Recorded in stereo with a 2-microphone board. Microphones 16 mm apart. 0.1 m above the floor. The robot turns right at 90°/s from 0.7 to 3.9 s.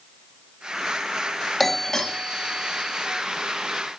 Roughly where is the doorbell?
Ahead left.